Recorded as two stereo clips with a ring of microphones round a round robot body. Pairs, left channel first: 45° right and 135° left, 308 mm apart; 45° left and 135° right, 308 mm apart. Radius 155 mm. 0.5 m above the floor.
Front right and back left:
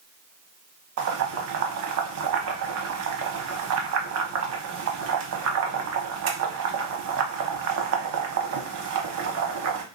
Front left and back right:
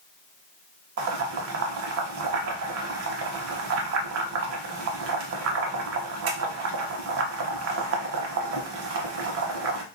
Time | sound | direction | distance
1.0 | boiling | straight behind | 0.7 m